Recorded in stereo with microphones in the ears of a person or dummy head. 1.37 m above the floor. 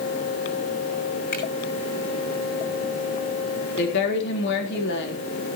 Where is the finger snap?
45° left (ahead or behind), 6 m.